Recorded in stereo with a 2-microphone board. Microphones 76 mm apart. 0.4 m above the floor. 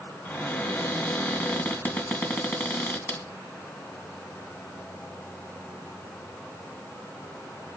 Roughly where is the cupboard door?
Left.